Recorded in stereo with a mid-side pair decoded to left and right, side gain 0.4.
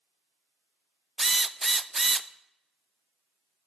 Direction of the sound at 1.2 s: 15° right.